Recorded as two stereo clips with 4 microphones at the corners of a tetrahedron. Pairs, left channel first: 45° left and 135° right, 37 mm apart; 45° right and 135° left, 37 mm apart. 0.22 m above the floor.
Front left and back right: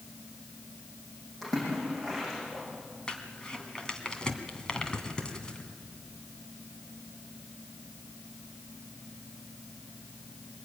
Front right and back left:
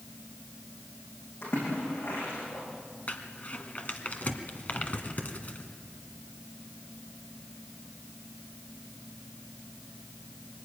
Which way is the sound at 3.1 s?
15° right.